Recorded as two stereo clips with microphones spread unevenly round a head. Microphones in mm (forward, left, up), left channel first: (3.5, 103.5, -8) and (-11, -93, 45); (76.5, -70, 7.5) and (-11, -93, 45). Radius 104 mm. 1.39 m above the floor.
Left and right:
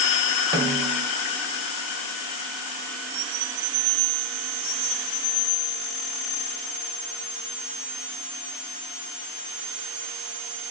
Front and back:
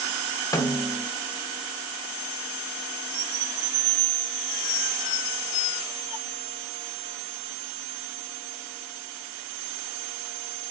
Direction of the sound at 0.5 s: 15° right.